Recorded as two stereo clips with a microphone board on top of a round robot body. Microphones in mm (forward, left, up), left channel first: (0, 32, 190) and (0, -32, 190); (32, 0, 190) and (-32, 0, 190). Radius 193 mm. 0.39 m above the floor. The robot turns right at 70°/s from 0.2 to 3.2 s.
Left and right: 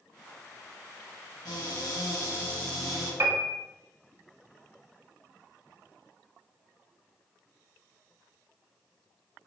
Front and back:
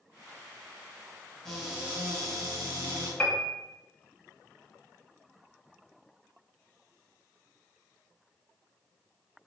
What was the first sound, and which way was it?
A cupboard door, 80° left.